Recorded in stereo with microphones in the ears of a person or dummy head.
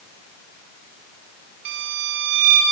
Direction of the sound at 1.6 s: 65° right (ahead or behind).